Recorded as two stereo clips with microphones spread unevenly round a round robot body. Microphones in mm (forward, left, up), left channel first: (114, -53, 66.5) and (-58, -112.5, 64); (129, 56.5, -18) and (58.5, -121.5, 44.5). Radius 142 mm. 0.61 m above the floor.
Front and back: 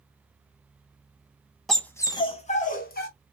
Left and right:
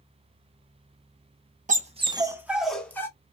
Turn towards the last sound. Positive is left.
turn(degrees=-15)